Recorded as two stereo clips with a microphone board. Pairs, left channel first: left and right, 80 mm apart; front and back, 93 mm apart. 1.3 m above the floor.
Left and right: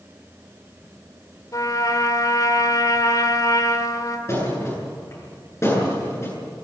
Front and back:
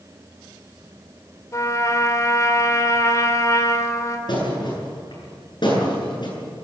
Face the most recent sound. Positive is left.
turn(degrees=35)